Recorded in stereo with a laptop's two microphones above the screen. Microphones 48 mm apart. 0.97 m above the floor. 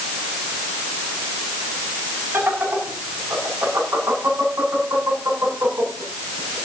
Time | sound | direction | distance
2.3 | laughter | 65° right (ahead or behind) | 8 m